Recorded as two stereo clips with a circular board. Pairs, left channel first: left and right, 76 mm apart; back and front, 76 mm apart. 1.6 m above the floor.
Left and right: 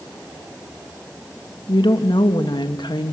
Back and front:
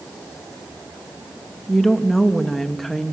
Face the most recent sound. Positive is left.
turn(degrees=90)